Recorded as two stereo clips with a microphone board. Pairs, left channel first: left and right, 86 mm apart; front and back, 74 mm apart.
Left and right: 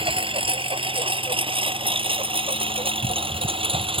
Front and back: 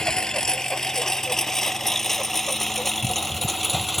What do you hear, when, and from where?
0.0 s a lawn mower: 80° right; by 4.0 s 90° right